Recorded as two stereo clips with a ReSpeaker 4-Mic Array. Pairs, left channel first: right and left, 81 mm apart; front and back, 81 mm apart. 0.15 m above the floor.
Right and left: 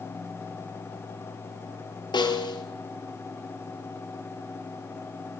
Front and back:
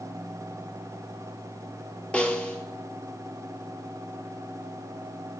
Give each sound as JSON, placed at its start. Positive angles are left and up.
{"t": 2.1, "sound": "a snare drum", "azimuth_deg": -75, "distance_m": 1.2}